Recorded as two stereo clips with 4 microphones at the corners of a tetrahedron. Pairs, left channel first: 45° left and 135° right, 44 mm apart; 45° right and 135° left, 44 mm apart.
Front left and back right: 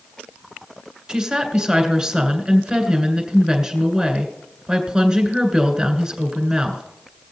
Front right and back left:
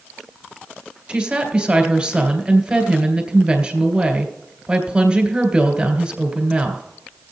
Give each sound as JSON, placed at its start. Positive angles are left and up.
{"t": 1.1, "sound": "a woman speaking", "azimuth_deg": 175, "distance_m": 1.7}